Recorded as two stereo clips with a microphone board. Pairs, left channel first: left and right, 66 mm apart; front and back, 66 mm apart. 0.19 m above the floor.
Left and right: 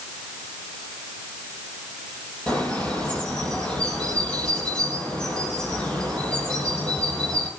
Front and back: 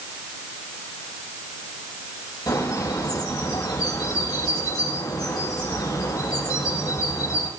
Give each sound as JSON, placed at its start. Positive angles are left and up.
{"t": 2.5, "sound": "a bird", "azimuth_deg": 15, "distance_m": 6.5}